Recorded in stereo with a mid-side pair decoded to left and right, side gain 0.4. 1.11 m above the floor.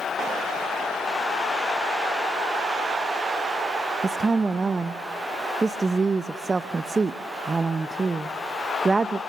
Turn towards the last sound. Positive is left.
turn(degrees=-35)